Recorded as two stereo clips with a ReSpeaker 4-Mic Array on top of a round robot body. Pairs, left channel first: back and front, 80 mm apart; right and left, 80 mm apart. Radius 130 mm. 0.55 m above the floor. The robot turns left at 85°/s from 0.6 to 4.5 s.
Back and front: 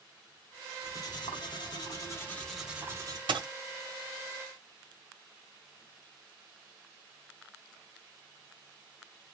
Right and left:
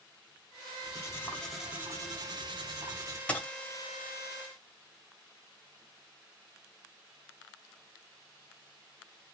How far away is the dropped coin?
About 1.1 m.